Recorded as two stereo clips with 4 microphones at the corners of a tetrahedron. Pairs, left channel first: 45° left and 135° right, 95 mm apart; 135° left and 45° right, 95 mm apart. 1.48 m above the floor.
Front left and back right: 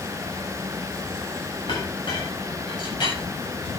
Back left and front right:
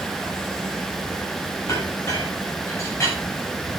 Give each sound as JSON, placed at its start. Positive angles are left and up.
{"t": 1.7, "sound": "a clink", "azimuth_deg": 75, "distance_m": 7.5}